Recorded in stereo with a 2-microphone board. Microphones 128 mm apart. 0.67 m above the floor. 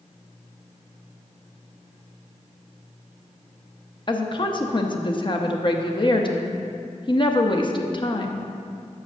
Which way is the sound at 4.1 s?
40° left (ahead or behind).